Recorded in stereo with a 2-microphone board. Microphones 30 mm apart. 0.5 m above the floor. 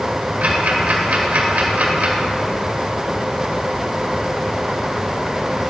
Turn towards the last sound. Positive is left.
turn(degrees=-65)  # may be behind; listen again after turning